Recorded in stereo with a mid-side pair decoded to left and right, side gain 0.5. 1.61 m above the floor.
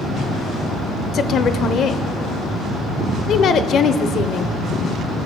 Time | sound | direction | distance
1.1 | a woman speaking | 60° left | 0.7 m